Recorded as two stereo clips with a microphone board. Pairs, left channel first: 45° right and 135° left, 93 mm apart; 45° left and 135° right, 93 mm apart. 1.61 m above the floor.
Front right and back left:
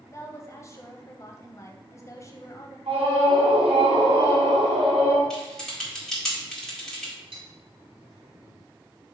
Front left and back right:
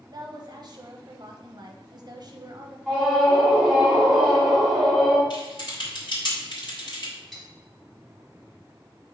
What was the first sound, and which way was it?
A woman speaking, 100° right.